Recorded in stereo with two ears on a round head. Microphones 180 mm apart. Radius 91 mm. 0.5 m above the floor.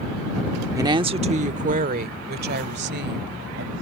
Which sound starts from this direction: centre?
A woman speaking, at 0.8 s.